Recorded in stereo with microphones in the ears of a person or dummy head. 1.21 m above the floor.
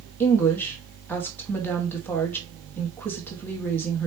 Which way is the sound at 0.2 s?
10° left (ahead or behind).